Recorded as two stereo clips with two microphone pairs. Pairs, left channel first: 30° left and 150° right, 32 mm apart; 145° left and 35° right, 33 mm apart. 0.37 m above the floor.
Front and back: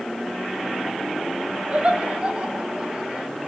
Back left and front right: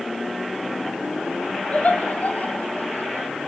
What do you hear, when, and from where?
1.7 s laughter: 170° left, 2.5 m; by 3.3 s 155° left, 4.5 m